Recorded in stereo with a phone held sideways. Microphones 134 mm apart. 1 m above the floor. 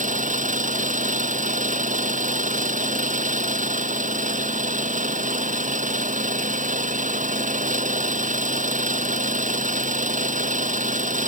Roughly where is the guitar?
No guitar in this recording.